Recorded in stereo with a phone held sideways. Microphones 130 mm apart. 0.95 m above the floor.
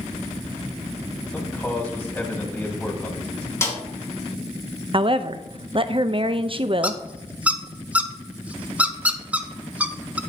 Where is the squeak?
10° right (ahead or behind), 0.5 m.